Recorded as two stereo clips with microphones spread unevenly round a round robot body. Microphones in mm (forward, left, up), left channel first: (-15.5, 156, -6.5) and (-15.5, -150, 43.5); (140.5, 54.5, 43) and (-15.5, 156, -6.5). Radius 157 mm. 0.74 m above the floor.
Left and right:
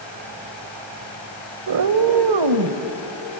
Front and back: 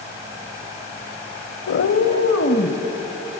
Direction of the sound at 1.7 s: 50° right.